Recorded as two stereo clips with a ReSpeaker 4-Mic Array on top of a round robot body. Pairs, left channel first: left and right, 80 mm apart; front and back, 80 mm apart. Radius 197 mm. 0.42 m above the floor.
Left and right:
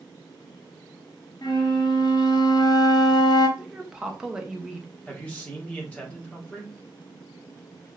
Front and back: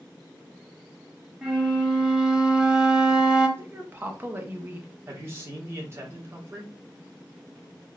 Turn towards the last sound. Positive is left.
turn(degrees=150)